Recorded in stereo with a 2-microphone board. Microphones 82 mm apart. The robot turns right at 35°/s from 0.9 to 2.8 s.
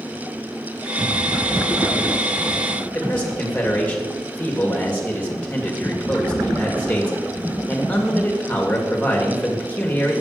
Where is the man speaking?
20° left (ahead or behind), 2 m.